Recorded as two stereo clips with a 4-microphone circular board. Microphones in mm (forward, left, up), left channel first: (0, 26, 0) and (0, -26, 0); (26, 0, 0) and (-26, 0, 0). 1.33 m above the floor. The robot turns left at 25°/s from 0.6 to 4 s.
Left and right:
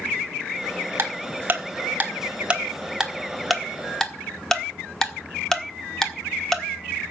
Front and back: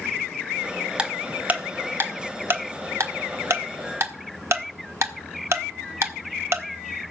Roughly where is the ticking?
Behind right.